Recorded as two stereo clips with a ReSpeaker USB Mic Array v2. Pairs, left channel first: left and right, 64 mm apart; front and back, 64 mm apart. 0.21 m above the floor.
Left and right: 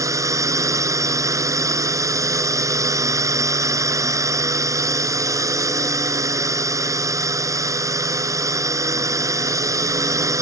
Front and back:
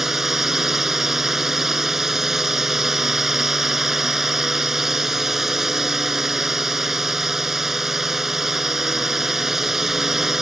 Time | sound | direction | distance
0.0 | a drone | 95° right | ?